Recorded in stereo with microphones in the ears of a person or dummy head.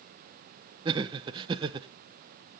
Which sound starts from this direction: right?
Laughter, at 0.8 s.